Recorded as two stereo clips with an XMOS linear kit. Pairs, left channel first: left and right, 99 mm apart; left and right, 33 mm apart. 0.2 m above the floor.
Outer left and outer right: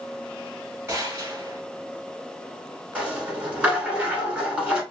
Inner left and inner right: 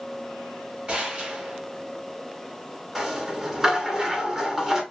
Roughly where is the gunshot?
Right.